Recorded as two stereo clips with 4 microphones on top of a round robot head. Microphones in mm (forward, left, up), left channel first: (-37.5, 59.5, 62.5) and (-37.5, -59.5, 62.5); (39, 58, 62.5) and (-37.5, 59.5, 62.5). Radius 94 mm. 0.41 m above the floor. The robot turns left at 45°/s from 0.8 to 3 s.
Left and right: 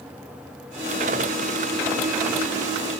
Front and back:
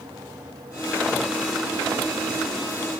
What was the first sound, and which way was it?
Only background noise.